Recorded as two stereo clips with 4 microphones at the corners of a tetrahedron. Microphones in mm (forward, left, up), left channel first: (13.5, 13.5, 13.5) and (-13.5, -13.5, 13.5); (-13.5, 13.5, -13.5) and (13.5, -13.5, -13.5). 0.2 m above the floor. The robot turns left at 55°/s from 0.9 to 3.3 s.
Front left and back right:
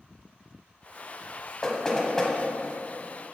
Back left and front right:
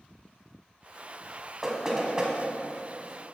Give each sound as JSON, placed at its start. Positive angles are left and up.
{"t": 1.6, "sound": "knocking", "azimuth_deg": 10, "distance_m": 1.1}